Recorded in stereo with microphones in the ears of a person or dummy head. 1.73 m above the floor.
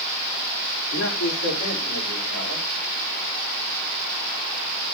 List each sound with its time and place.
0.9 s a man speaking: 85° left, 5.5 m